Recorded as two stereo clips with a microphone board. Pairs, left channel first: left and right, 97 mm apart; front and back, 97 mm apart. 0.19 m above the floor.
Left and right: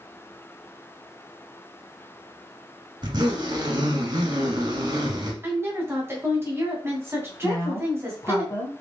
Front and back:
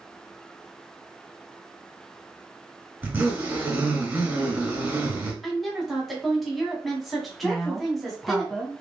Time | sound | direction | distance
3.0 | a zipper | 115° right | 1.6 m
5.4 | a woman speaking | 90° right | 1.7 m
7.4 | a woman speaking | 85° left | 1.4 m